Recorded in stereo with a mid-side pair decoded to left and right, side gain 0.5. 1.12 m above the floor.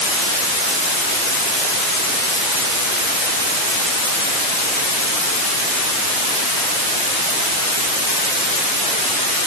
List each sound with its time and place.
Only background noise.